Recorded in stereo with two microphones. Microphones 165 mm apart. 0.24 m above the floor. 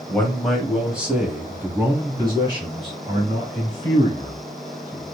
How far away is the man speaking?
About 1.3 m.